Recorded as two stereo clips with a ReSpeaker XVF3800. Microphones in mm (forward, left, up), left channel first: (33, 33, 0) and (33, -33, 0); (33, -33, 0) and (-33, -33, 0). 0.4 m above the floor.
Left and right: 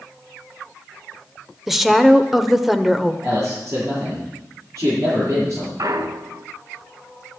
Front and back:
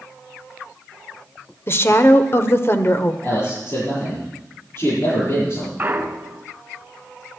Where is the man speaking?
45° right, 8 m.